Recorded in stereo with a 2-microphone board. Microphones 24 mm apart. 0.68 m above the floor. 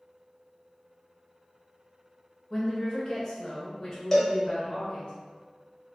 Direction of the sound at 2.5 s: 35° left (ahead or behind).